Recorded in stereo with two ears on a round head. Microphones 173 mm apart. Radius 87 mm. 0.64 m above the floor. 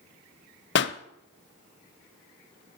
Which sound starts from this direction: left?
A pop, at 0.8 s.